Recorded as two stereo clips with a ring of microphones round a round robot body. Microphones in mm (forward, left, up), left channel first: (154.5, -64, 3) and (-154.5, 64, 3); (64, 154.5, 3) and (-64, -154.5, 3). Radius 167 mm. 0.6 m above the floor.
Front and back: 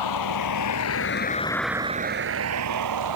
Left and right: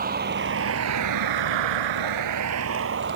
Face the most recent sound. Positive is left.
turn(degrees=-170)